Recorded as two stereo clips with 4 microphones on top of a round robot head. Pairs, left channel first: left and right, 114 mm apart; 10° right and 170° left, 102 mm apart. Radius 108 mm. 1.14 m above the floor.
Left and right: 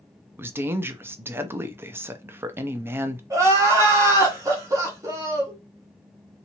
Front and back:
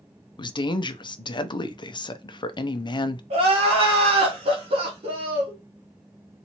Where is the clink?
I don't hear a clink.